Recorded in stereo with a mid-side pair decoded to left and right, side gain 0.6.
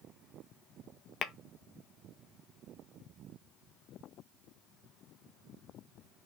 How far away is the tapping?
About 0.6 m.